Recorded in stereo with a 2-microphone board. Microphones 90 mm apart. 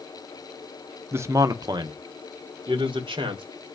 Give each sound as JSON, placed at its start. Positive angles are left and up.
{"t": 1.1, "sound": "a man speaking", "side_deg": -25, "distance_m": 0.7}